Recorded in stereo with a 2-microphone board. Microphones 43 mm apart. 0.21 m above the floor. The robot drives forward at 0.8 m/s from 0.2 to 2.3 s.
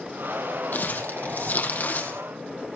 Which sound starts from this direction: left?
Crumpling, at 0.7 s.